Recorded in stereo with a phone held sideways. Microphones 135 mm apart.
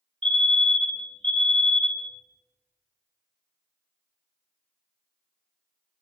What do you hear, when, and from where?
0.2 s a fire alarm: 40° right (ahead or behind), 2 m